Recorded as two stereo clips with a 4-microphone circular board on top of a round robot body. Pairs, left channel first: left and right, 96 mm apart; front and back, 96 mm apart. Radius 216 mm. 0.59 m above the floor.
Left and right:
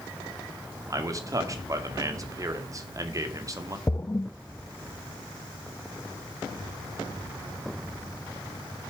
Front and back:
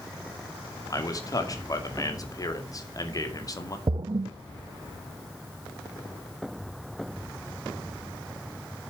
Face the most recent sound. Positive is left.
turn(degrees=150)